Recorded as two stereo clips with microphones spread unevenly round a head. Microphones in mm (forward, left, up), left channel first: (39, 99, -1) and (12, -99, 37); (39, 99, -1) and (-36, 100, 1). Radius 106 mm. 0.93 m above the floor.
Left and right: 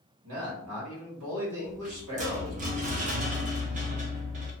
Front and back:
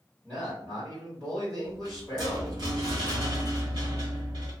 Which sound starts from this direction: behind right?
A rattle, at 1.6 s.